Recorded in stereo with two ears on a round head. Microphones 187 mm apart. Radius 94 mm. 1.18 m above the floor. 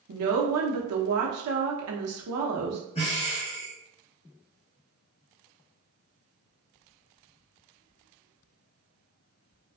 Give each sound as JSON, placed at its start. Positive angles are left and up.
{"t": 0.1, "sound": "a woman speaking", "side_deg": -80, "distance_m": 0.7}
{"t": 3.0, "sound": "breathing", "side_deg": 30, "distance_m": 0.7}